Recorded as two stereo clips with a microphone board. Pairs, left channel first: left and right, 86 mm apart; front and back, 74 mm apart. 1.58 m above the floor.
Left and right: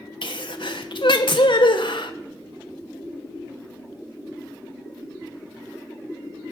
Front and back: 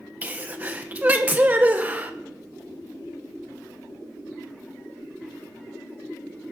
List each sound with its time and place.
0.2 s a sneeze: 115° left, 1.2 m